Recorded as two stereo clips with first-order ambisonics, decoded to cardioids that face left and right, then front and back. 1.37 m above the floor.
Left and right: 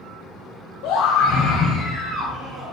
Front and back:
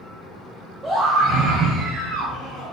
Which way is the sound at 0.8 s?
105° left.